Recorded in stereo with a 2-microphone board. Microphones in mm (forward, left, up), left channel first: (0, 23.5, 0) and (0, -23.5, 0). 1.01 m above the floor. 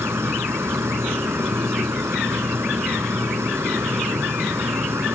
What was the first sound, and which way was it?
An insect, 75° right (ahead or behind).